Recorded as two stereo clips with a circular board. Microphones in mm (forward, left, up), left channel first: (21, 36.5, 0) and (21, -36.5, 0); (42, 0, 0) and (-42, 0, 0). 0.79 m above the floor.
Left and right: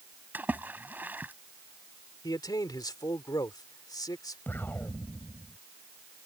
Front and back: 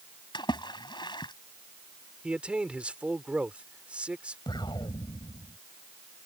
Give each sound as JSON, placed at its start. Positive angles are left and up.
{"t": 0.3, "sound": "a splash", "azimuth_deg": -25}
{"t": 2.2, "sound": "a man speaking", "azimuth_deg": 105}
{"t": 4.5, "sound": "an explosion", "azimuth_deg": 30}